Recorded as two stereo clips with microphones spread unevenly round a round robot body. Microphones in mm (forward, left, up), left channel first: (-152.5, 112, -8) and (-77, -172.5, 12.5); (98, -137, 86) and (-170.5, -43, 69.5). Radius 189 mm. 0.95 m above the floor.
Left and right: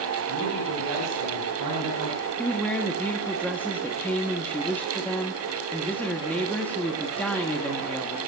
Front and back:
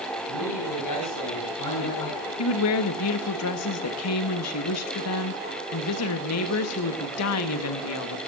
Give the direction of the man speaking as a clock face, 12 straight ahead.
1 o'clock.